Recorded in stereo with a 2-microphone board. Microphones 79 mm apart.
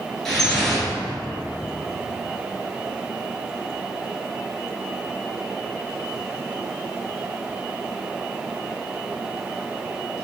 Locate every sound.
0.2 s dripping: 5° left (ahead or behind), 1.7 m